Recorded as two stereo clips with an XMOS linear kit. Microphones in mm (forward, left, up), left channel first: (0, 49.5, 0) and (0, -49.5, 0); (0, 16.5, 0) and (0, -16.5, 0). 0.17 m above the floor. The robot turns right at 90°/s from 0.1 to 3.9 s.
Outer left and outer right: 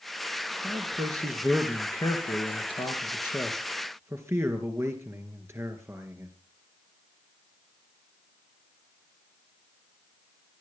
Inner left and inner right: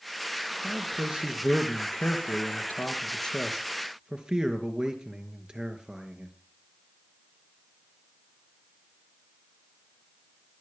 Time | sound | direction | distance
0.6 | a man speaking | 85° right | 3.5 m